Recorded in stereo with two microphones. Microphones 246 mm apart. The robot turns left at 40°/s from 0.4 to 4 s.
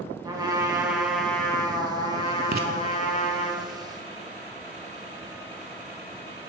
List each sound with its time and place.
0.2 s a trumpet: 150° right, 1.0 m; by 3.5 s 85° left, 1.0 m
2.5 s writing: 40° right (ahead or behind), 0.6 m; by 2.7 s 35° right (ahead or behind), 0.6 m